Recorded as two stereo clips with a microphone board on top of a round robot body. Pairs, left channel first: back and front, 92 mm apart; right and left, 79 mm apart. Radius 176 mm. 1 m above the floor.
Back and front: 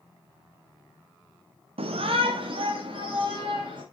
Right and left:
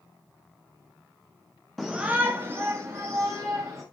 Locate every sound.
1.8 s a shout: straight ahead, 0.7 m; by 3.8 s 35° left, 3 m